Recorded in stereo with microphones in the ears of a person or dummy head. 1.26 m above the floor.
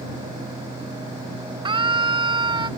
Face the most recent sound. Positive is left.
turn(degrees=-30)  # may be behind; listen again after turning